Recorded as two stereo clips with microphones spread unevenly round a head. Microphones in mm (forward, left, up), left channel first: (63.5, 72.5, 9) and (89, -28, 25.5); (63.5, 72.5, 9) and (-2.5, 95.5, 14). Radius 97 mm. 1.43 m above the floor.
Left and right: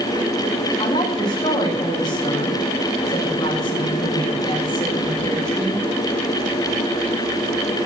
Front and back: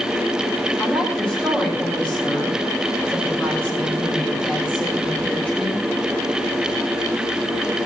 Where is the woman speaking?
55° left, 7 m.